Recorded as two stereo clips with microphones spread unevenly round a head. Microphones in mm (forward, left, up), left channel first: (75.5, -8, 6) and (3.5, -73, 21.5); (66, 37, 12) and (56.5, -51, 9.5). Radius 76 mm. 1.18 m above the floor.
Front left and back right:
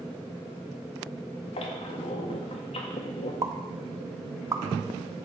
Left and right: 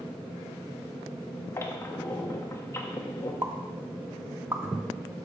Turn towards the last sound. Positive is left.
turn(degrees=-155)